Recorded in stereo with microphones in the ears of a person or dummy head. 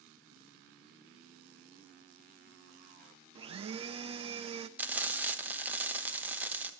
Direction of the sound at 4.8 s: 10° right (ahead or behind).